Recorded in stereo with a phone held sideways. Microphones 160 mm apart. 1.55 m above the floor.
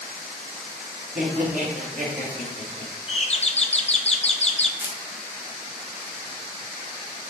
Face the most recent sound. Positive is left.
turn(degrees=-15)  # may be behind; listen again after turning